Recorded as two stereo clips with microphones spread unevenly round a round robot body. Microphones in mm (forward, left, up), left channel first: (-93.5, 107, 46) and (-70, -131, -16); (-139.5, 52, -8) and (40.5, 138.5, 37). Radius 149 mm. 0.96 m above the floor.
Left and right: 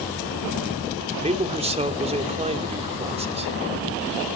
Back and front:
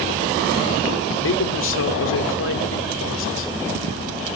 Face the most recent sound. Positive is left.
turn(degrees=-150)